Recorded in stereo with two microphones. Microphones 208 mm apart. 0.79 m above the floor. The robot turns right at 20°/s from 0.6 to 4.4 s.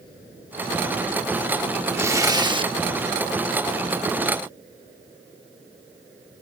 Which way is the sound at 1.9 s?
10° right (ahead or behind).